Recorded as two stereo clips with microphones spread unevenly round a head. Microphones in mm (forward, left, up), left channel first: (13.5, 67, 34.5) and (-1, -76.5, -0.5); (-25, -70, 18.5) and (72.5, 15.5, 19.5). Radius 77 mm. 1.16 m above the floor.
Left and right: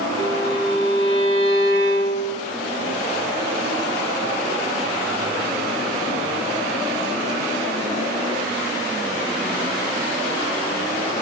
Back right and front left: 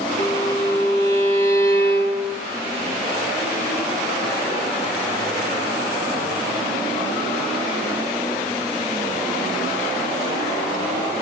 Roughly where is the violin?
Ahead left.